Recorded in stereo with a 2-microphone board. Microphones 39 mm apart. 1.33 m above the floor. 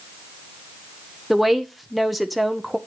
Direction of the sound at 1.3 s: Centre (ahead or behind).